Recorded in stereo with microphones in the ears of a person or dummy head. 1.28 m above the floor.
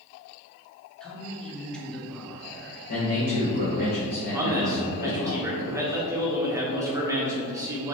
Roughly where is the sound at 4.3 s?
Centre.